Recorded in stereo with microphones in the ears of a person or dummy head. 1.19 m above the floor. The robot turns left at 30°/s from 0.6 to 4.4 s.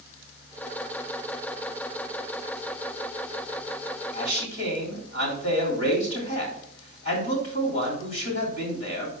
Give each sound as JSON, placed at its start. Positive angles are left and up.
{"t": 4.1, "sound": "a man speaking", "side_deg": 60, "distance_m": 3.0}